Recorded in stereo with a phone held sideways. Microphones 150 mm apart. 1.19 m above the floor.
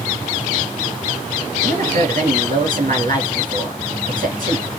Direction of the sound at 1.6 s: 60° right (ahead or behind).